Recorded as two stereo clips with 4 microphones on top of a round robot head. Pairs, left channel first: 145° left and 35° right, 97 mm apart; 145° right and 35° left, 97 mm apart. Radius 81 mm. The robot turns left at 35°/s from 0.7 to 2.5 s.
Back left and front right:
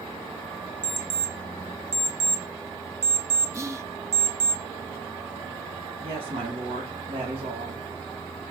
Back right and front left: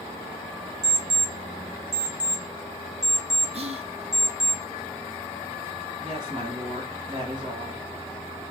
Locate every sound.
0.8 s an alarm clock: 10° left, 1.1 m; by 4.5 s 50° right, 1.1 m
3.5 s whispering: 25° left, 1.2 m
6.0 s a woman speaking: 10° right, 3 m